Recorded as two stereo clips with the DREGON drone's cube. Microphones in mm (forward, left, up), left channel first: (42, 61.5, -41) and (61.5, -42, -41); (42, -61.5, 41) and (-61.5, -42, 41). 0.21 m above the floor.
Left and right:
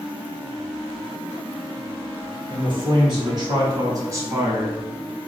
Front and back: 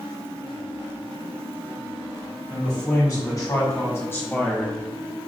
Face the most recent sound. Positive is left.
turn(degrees=-70)